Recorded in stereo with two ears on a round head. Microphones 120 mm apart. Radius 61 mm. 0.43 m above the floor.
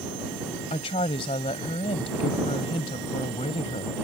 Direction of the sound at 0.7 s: 40° left (ahead or behind).